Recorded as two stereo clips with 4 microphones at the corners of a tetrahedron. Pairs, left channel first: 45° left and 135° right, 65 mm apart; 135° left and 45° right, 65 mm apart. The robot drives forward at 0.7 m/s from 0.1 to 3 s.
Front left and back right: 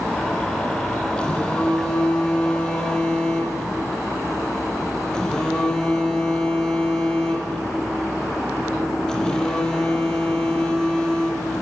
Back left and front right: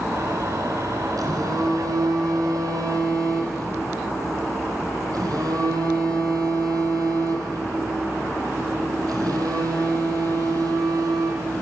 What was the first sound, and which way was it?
A phone buzzing, 30° right.